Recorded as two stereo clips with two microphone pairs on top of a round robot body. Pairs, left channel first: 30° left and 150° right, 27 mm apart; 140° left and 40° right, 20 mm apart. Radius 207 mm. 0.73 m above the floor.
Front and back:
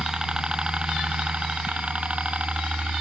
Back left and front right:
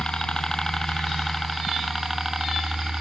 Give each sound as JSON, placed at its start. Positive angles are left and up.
{"t": 0.0, "sound": "a helicopter", "azimuth_deg": 150}